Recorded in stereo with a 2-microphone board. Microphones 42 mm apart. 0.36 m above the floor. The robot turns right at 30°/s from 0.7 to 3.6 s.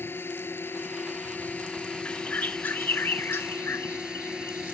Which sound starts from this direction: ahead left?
A bird, at 2.0 s.